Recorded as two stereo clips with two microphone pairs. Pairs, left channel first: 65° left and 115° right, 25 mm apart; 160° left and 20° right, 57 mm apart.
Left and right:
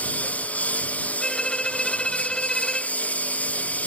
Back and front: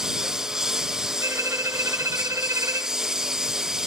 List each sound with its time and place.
0.0 s a lawn mower: 65° left
1.2 s a violin: 5° left